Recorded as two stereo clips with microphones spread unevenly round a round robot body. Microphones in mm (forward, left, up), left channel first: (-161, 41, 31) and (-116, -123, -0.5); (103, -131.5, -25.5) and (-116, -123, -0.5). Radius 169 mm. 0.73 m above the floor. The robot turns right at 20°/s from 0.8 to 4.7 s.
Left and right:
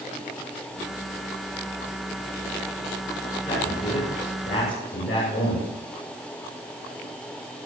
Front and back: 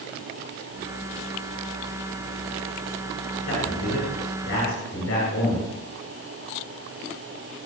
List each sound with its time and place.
3.5 s a man speaking: 30° left, 8.5 m; by 5.6 s 55° left, 8.5 m